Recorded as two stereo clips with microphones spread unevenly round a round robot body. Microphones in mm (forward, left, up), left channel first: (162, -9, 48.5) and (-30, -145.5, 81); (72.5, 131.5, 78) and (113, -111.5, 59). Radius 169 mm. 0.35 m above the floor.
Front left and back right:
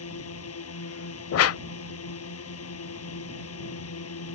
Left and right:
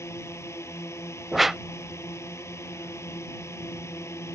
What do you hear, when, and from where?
0.0 s a drone: 20° left
1.3 s a whoosh: 10° left